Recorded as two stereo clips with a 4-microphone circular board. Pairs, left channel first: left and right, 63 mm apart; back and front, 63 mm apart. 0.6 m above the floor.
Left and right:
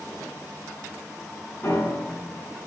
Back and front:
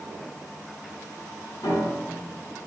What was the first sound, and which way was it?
A piano, 150° left.